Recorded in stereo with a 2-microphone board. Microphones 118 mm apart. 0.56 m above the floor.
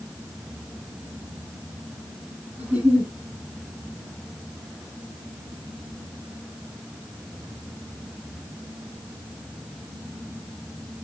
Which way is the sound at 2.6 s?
80° right.